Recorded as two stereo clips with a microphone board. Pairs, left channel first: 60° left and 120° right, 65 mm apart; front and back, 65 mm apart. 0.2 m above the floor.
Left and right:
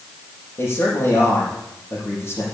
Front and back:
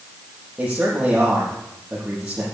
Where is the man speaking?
105° left, 6.5 m.